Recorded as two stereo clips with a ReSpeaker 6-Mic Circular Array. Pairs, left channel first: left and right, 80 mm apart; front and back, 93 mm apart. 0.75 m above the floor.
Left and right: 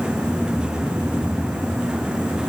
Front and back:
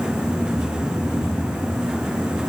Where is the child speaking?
No child speaking in this recording.